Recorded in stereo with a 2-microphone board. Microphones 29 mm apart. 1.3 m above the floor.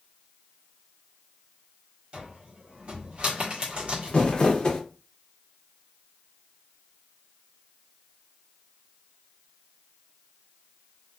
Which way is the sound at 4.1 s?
35° left (ahead or behind).